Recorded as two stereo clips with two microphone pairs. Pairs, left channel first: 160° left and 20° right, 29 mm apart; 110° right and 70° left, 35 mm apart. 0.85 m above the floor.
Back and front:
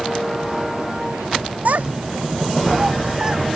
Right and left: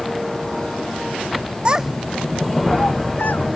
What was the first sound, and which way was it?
A child speaking, 10° left.